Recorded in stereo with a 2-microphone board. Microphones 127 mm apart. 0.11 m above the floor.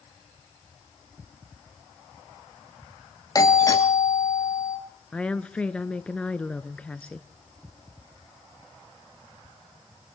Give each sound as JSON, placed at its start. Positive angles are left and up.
{"t": 3.4, "sound": "a doorbell", "side_deg": 30, "distance_m": 2.5}
{"t": 5.1, "sound": "a woman speaking", "side_deg": 10, "distance_m": 1.1}